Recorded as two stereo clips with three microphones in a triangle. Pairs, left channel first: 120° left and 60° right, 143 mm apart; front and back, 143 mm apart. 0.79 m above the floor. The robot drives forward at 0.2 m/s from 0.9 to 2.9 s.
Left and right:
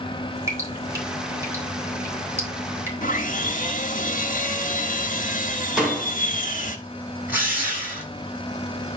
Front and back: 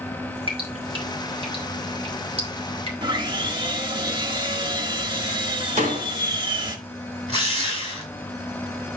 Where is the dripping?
130° right, 3.5 m; by 2.9 s 135° right, 3.5 m.